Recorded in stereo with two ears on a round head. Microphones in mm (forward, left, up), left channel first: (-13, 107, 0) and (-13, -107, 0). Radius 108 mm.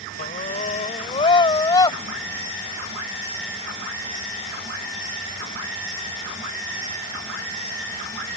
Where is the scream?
35° left (ahead or behind); by 2.0 s 15° left (ahead or behind).